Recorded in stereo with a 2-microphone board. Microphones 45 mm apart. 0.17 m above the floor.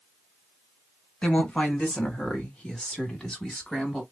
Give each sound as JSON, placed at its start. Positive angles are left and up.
{"t": 1.2, "sound": "a woman speaking", "side_deg": 20, "distance_m": 2.0}